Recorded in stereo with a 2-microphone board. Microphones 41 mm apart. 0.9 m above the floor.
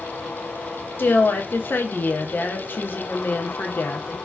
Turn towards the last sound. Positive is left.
turn(degrees=55)  # may be behind; listen again after turning